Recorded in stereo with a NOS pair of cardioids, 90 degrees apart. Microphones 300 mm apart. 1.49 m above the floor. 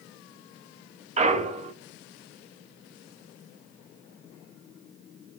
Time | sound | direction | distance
1.2 | a clunk | 25° right | 0.8 m